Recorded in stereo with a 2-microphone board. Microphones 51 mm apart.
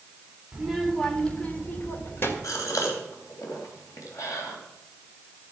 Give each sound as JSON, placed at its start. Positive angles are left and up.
{"t": 0.5, "sound": "a child speaking", "side_deg": -10, "distance_m": 1.9}
{"t": 2.4, "sound": "a gasp", "side_deg": 85, "distance_m": 3.5}